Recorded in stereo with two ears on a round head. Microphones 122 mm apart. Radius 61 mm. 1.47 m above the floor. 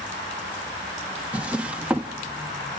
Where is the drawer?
10° right (ahead or behind), 0.9 m.